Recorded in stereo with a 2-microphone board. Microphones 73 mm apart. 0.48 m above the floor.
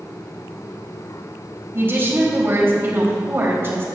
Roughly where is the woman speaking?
Right.